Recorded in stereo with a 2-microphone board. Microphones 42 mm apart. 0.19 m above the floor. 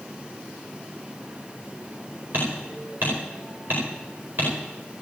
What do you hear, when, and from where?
2.3 s hammering: 50° right (ahead or behind), 9.5 m